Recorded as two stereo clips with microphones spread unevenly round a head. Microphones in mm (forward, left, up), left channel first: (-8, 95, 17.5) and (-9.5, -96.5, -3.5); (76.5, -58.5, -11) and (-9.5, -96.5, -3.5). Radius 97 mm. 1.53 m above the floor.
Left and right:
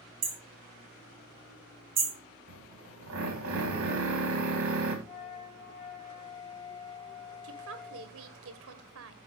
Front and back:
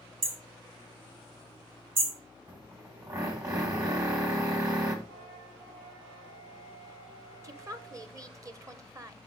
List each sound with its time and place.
0.2 s hammering: 155° right, 2.5 m
2.5 s a drill: 105° right, 3 m
5.0 s a flute: 90° left, 2.5 m
7.4 s a woman speaking: 100° right, 1.3 m